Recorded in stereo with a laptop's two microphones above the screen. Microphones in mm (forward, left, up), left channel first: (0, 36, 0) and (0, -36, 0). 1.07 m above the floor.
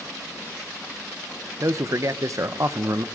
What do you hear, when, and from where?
1.6 s a man speaking: 50° right (ahead or behind), 0.8 m